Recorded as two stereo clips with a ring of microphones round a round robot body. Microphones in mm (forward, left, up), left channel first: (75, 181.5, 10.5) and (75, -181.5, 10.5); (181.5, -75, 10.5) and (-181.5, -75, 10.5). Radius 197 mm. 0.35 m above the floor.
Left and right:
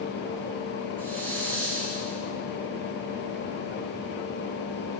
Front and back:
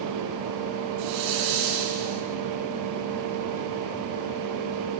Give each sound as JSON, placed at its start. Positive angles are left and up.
{"t": 1.0, "sound": "a hiss", "azimuth_deg": 175, "distance_m": 6.0}